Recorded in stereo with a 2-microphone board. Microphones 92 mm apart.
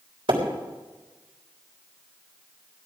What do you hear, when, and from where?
0.3 s a splash: 70° right (ahead or behind), 3.5 m